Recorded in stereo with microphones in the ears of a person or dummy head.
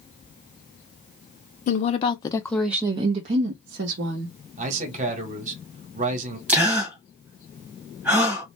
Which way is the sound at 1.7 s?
45° left (ahead or behind).